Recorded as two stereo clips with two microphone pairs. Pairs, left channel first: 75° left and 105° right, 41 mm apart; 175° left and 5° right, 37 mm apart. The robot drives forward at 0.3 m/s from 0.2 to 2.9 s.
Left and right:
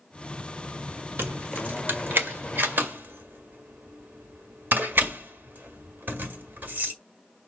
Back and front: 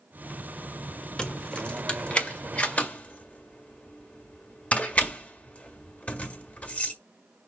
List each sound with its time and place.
1.2 s keys jangling: 120° right, 1.4 m; by 6.9 s 140° right, 1.7 m